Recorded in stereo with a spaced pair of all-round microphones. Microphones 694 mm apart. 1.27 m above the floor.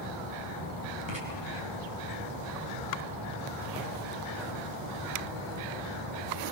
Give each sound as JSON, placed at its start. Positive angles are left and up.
{"t": 1.1, "sound": "writing", "side_deg": -40, "distance_m": 6.0}